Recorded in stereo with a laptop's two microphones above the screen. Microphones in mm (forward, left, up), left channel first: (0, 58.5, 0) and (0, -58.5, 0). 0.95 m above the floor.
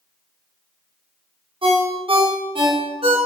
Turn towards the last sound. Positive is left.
turn(degrees=-50)  # may be behind; listen again after turning